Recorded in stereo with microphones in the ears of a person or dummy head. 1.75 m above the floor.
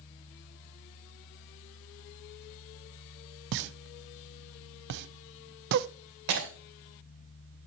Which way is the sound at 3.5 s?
60° right (ahead or behind).